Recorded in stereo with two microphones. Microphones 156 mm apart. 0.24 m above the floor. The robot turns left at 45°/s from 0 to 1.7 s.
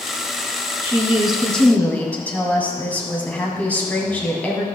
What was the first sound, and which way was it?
A woman speaking, 155° right.